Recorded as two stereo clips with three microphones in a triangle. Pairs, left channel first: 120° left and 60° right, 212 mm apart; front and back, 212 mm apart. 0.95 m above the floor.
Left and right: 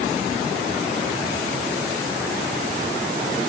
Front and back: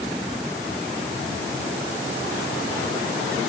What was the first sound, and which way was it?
Only background noise.